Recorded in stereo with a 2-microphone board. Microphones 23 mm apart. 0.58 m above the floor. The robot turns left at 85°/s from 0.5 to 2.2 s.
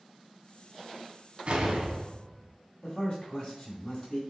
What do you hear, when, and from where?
1.5 s an explosion: 95° right, 0.6 m; by 2.5 s 155° right, 0.6 m
2.8 s a man speaking: 30° left (ahead or behind), 1.4 m